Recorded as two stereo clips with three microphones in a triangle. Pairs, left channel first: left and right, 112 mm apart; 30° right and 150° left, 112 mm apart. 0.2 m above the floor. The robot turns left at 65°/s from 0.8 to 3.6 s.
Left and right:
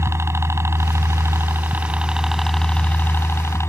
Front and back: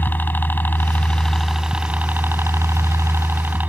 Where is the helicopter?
75° right; by 3.7 s 100° left.